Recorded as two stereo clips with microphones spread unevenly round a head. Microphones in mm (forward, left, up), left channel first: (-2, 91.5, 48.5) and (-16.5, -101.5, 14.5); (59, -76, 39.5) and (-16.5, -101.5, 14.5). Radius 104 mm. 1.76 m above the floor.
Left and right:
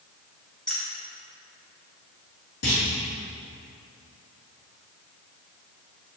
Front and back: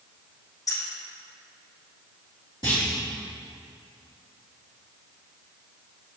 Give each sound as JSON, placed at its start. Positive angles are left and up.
{"t": 0.7, "sound": "keys jangling", "azimuth_deg": 5, "distance_m": 1.5}
{"t": 2.6, "sound": "a clunk", "azimuth_deg": 85, "distance_m": 2.5}